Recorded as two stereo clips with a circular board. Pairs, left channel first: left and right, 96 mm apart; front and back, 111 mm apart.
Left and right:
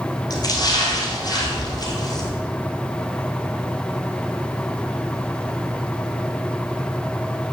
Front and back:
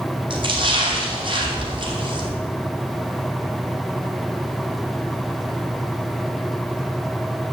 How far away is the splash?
About 2.5 m.